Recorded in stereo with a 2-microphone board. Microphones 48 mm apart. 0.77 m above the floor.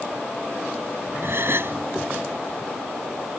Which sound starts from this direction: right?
A gasp, at 1.2 s.